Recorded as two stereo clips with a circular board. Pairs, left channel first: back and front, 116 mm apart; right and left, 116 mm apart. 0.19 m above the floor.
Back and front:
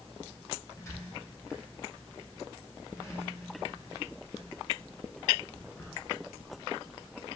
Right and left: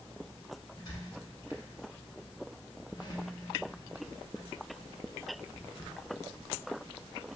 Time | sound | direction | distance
0.8 | a squeak | 125° right | 0.9 m